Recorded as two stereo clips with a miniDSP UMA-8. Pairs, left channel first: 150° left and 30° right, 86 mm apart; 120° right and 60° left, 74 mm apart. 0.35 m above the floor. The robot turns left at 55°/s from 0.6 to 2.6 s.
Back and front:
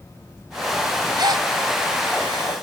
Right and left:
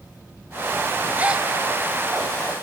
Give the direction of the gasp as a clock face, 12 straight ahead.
12 o'clock.